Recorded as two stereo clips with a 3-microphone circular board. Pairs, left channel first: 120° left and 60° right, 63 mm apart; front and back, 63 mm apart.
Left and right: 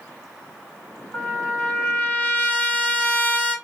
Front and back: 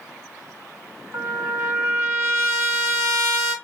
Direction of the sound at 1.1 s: 175° left.